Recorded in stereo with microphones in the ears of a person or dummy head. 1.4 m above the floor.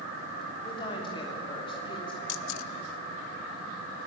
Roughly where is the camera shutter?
Left.